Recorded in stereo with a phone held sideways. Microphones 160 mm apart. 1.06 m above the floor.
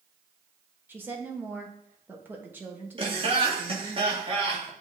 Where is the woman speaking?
10° right (ahead or behind), 1.5 m.